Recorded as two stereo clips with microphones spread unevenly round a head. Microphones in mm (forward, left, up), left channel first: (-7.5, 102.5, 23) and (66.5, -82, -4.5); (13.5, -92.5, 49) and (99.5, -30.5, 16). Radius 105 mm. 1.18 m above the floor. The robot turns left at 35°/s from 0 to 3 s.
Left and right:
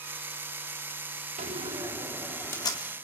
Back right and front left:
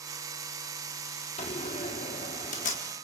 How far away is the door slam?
About 1.7 m.